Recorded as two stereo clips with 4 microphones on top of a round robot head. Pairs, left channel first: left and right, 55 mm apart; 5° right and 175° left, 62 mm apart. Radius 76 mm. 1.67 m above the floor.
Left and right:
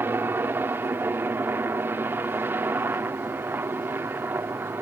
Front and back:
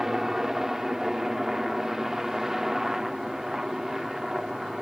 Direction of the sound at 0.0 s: 100° right.